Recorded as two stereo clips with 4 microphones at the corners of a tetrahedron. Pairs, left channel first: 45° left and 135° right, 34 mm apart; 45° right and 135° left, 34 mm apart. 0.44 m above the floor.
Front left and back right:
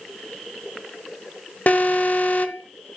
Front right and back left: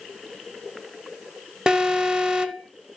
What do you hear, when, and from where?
1.7 s an alarm: 75° left, 1.1 m